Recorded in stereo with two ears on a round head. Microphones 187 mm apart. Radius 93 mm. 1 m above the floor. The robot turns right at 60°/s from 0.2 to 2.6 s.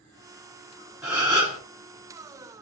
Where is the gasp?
175° right, 3 m; by 1.6 s 140° right, 3 m.